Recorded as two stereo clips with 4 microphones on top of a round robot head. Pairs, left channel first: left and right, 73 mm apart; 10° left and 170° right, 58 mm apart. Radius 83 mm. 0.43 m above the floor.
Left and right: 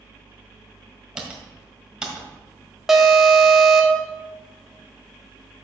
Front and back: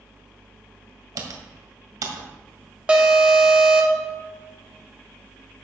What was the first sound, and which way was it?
Typing on a keyboard, 170° right.